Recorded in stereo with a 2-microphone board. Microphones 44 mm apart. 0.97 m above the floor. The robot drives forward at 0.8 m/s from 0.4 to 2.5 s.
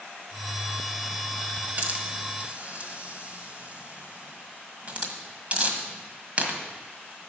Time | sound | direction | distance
1.8 | a hiss | 45° right (ahead or behind) | 1.2 m